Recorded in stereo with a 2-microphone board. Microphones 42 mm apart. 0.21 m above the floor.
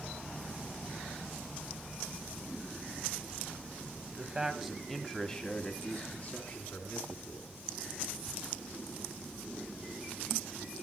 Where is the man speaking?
20° right (ahead or behind), 1.5 m; by 7.5 s 55° left (ahead or behind), 2.5 m.